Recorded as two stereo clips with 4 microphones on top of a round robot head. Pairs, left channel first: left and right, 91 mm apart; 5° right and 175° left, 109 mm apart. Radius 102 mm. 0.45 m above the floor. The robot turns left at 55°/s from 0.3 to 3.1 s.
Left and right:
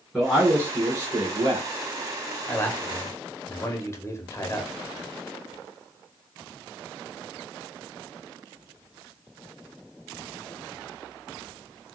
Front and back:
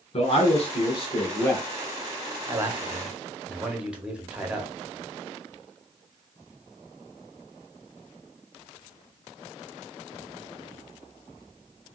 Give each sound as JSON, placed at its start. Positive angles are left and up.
{"t": 0.1, "sound": "a man speaking", "azimuth_deg": 10, "distance_m": 1.2}
{"t": 2.5, "sound": "a man speaking", "azimuth_deg": 135, "distance_m": 1.1}